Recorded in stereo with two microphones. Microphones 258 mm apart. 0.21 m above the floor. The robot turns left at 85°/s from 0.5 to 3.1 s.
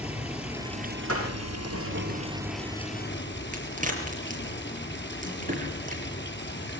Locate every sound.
0.0 s running water: 5° right, 4 m; by 6.8 s 135° left, 4 m
1.1 s a door slam: 65° right (ahead or behind), 9.5 m; by 1.8 s 5° right (ahead or behind), 9.5 m
3.5 s a crack: 30° right (ahead or behind), 5 m